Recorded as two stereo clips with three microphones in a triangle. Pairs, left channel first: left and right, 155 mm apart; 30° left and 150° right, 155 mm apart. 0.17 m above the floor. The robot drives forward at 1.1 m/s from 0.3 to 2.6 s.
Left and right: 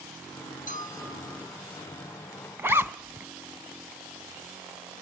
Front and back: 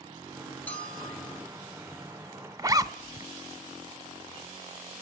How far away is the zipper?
About 0.5 m.